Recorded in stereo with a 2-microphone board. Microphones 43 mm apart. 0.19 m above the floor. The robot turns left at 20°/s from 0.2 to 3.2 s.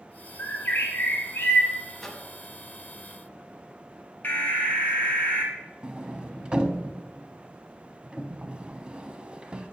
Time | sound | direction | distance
0.4 | a bird | 55° left (ahead or behind) | 2.5 m
2.0 | a microwave | 5° left (ahead or behind) | 0.9 m
4.2 | an alarm | 30° left (ahead or behind) | 1.6 m
5.8 | a sliding door | 20° right (ahead or behind) | 0.5 m